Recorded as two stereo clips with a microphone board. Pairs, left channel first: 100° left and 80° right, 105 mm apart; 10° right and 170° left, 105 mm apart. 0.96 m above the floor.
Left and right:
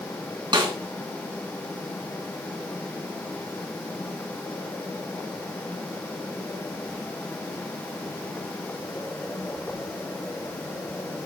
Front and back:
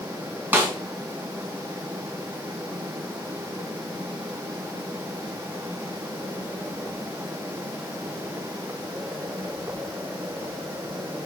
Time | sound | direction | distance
0.5 | a snare drum | 120° right | 3 m